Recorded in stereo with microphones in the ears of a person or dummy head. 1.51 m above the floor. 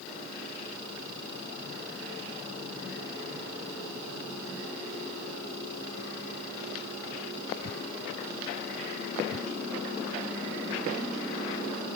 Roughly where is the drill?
I don't hear a drill.